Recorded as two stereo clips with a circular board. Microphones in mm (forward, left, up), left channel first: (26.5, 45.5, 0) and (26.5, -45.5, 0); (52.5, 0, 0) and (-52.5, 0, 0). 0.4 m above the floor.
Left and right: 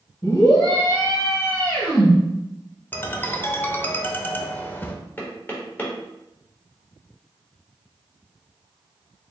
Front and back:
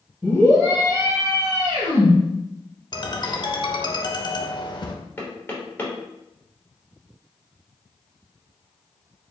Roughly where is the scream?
Left.